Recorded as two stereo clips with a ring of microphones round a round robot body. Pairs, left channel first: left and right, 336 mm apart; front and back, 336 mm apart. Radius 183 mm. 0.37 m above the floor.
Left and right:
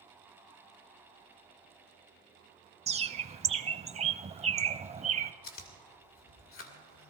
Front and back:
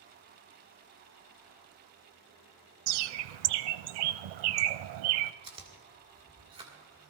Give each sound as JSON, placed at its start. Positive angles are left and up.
{"t": 2.9, "sound": "a bird", "azimuth_deg": -165, "distance_m": 0.6}
{"t": 5.4, "sound": "chewing", "azimuth_deg": 115, "distance_m": 1.8}